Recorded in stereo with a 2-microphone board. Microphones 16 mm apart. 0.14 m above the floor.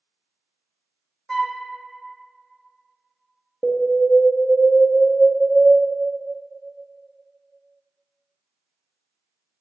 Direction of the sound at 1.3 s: 20° left (ahead or behind).